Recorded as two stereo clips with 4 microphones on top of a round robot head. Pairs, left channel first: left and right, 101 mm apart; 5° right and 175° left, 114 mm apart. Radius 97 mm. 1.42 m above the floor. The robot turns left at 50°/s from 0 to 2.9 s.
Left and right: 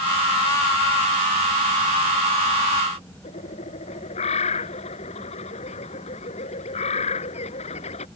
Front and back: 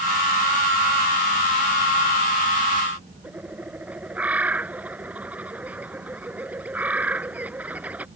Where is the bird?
100° left.